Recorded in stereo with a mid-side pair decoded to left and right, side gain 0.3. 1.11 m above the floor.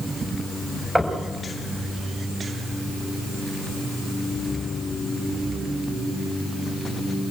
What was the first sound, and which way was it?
Knocking, straight ahead.